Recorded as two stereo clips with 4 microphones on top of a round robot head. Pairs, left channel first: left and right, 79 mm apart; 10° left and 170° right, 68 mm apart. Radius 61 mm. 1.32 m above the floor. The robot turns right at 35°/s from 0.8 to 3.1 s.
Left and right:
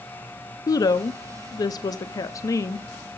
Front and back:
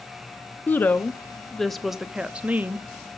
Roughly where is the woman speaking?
Ahead left.